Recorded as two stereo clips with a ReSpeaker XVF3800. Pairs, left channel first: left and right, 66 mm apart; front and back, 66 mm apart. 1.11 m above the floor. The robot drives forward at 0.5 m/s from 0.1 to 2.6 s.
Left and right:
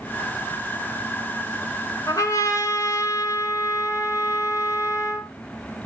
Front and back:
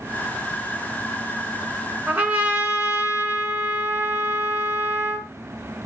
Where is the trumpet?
115° left, 1.7 m; by 5.3 s 125° left, 1.8 m.